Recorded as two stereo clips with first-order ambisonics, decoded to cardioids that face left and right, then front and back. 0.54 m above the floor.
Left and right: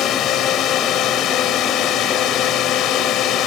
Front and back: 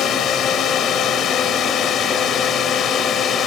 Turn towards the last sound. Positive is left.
turn(degrees=55)